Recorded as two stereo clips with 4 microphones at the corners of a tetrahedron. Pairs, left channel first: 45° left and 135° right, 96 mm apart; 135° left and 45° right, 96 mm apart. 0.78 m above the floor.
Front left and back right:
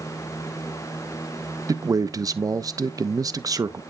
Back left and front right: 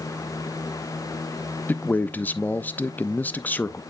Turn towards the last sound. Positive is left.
turn(degrees=-165)